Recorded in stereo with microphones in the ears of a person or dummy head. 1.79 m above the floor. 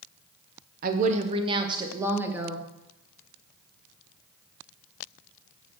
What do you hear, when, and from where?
0.8 s a woman speaking: 50° right (ahead or behind), 1.0 m; by 2.6 s 10° right (ahead or behind), 1.8 m